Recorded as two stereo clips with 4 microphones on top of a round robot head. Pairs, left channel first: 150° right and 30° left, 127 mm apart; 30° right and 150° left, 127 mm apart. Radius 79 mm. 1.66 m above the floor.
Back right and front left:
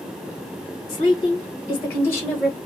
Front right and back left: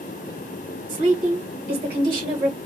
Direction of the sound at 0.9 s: 165° left.